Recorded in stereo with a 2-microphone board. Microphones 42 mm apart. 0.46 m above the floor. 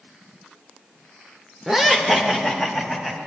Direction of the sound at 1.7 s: 10° right (ahead or behind).